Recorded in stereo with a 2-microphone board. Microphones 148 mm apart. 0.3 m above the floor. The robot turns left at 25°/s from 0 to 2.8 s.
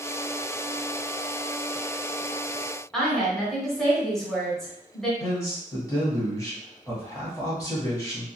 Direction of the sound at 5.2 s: 20° left (ahead or behind).